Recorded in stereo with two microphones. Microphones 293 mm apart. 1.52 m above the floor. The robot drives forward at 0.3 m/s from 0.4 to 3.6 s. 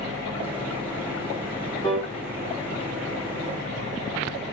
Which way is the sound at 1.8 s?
15° left (ahead or behind).